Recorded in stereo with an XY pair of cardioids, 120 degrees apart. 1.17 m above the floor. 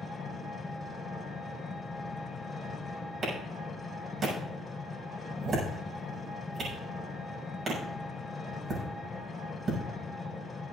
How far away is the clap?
About 7 m.